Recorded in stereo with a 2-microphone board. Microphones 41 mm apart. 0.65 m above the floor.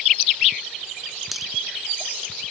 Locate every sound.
1.3 s a dropped coin: centre (ahead or behind)